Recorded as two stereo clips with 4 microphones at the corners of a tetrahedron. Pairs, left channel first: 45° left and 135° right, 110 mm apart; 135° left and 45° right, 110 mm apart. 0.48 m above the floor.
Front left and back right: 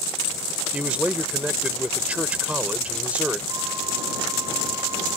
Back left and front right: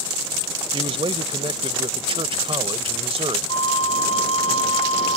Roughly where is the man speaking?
Ahead right.